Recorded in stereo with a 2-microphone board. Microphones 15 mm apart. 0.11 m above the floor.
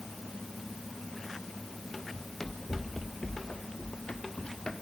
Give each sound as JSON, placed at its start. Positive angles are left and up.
{"t": 2.1, "sound": "running footsteps", "side_deg": 20, "distance_m": 2.5}